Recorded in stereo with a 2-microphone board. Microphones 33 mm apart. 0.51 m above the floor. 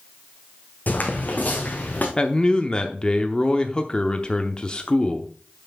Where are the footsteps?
65° left (ahead or behind), 1.6 m; by 2.1 s 60° left (ahead or behind), 2.5 m.